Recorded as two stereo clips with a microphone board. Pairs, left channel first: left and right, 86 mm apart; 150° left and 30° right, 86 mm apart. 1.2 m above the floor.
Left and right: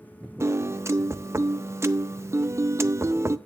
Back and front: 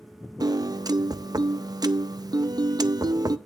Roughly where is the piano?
Ahead right.